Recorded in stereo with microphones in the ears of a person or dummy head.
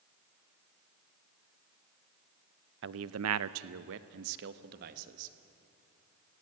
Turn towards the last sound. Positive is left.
turn(degrees=-50)  # may be behind; listen again after turning